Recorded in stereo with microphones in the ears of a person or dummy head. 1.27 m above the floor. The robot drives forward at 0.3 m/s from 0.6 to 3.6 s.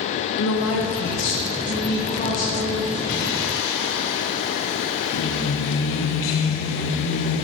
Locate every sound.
0.4 s a woman speaking: 60° left (ahead or behind), 0.6 m; by 3.0 s 30° left (ahead or behind), 0.9 m
3.1 s singing: 60° left (ahead or behind), 0.6 m; by 7.4 s 75° left (ahead or behind), 0.6 m